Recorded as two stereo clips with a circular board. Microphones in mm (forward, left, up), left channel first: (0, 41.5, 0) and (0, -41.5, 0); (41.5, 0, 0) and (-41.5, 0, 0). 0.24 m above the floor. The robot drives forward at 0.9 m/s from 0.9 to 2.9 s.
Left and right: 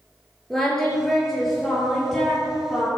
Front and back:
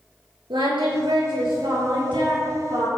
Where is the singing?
175° left, 5 m.